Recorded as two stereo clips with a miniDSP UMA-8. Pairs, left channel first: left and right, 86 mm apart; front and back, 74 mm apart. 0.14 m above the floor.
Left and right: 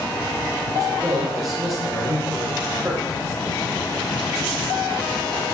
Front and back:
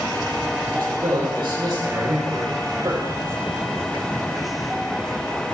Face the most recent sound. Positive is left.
turn(degrees=-145)